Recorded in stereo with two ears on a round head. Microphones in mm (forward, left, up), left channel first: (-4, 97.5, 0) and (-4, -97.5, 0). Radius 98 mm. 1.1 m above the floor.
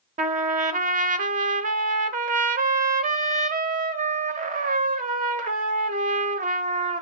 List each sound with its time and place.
0.2 s a trumpet: 35° right (ahead or behind), 1.0 m